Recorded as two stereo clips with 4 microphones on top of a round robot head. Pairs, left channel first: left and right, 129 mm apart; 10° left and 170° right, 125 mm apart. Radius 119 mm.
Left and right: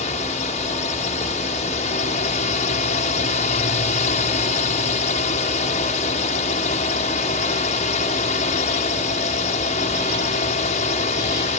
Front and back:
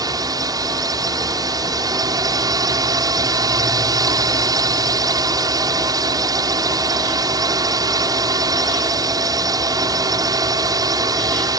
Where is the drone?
130° left.